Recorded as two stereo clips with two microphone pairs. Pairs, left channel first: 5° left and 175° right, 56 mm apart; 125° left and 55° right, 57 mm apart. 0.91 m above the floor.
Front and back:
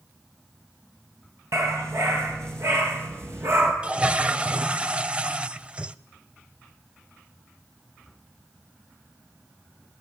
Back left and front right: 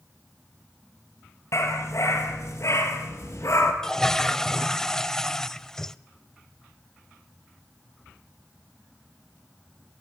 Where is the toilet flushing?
175° right, 0.7 m.